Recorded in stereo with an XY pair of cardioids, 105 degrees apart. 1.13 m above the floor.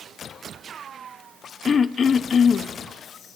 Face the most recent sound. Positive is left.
turn(degrees=45)